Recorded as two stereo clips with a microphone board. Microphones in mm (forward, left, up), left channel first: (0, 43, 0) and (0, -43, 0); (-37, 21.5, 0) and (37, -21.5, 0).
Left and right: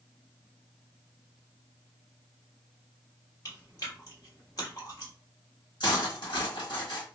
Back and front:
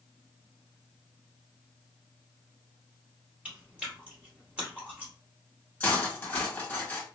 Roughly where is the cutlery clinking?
Left.